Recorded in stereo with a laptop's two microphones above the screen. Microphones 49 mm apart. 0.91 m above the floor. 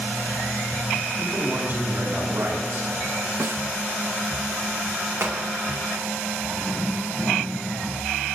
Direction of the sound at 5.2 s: 70° right (ahead or behind).